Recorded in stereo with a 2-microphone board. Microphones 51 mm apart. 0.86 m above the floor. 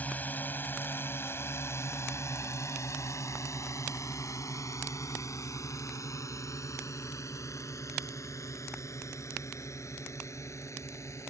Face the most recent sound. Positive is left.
turn(degrees=65)  # may be behind; listen again after turning